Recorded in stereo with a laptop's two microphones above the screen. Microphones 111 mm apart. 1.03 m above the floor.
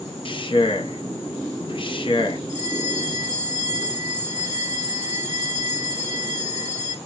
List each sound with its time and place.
0.2 s a man speaking: 45° left (ahead or behind), 1.1 m
2.5 s a bell: 75° left (ahead or behind), 2.5 m